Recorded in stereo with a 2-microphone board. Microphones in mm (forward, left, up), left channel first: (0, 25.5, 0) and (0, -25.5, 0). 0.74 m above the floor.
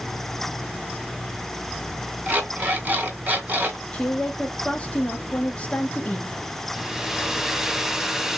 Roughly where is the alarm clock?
Right.